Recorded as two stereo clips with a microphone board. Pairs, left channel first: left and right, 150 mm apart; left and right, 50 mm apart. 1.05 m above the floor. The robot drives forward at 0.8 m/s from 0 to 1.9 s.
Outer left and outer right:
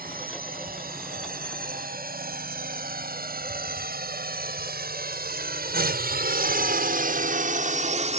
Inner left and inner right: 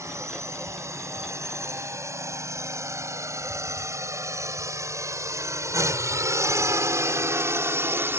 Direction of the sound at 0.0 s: 70° right (ahead or behind).